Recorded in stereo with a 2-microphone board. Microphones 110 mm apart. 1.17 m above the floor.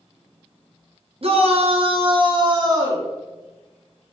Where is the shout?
60° right (ahead or behind), 0.8 m; by 3.1 s 25° right (ahead or behind), 1.0 m.